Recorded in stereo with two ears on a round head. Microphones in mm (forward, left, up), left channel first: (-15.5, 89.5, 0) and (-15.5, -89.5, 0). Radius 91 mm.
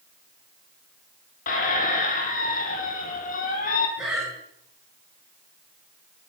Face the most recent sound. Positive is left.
turn(degrees=-5)  # may be behind; listen again after turning